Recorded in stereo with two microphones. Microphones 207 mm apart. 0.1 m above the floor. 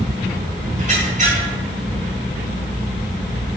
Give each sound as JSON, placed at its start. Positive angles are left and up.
{"t": 0.8, "sound": "a squeak", "side_deg": -40, "distance_m": 2.5}